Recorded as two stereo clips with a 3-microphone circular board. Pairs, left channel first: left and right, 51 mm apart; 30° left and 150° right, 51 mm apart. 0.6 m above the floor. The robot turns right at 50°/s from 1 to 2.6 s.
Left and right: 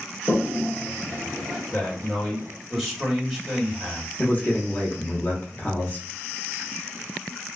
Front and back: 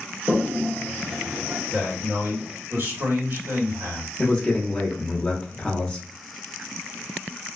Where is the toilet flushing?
125° left, 0.7 m; by 1.6 s 160° left, 0.7 m.